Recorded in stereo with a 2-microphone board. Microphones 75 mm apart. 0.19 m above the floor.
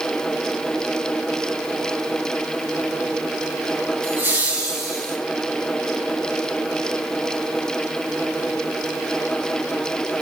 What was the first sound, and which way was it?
Laughter, 30° right (ahead or behind).